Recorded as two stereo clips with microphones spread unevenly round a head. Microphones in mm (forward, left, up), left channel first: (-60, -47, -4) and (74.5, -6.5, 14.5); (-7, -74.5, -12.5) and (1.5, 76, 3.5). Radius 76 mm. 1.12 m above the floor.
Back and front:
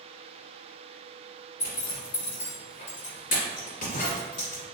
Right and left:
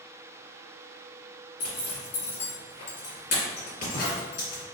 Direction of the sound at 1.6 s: 135° right.